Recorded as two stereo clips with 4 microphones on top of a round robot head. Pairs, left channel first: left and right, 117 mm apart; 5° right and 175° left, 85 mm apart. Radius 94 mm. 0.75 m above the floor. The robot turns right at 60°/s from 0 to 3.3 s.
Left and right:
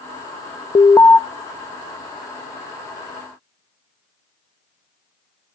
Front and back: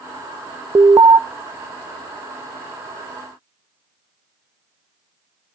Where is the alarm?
135° left, 0.7 m; by 1.2 s 165° left, 0.7 m.